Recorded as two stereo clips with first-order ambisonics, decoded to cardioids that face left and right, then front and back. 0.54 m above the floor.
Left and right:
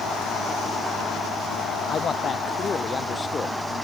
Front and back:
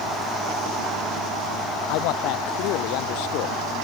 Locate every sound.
1.9 s a man speaking: 25° left; by 3.6 s 15° left